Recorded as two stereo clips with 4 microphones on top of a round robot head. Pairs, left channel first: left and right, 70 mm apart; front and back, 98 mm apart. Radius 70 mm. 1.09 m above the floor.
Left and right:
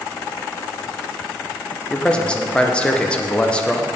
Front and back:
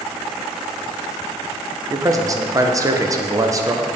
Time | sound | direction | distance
1.9 | a man speaking | 155° left | 0.8 m